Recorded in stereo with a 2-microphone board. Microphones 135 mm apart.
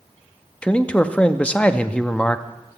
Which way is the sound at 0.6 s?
10° left (ahead or behind).